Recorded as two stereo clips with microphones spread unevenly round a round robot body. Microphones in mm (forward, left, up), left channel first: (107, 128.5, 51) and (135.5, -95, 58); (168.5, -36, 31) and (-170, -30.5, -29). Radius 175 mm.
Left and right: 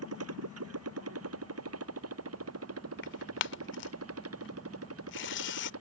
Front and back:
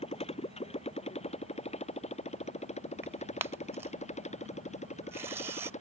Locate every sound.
0.0 s a motorcycle: 75° right; by 5.8 s 70° right
3.0 s tearing paper: 105° left